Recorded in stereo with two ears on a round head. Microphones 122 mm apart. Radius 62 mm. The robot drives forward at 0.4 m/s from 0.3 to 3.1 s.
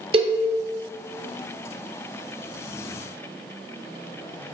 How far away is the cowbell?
About 0.7 m.